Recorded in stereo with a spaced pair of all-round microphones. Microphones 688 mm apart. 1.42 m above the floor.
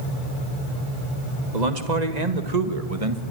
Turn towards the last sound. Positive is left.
turn(degrees=-45)  # may be behind; listen again after turning